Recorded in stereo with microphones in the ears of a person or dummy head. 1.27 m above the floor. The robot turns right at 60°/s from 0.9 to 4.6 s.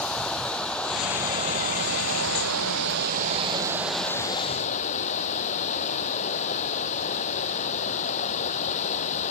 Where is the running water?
175° left; by 9.3 s 35° left.